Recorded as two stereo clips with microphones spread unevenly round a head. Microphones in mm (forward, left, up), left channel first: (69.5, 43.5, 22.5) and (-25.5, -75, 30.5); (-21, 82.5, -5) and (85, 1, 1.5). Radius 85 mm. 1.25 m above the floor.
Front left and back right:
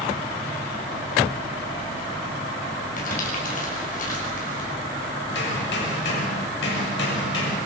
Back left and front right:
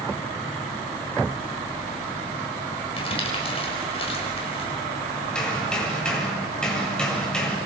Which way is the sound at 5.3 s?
60° left.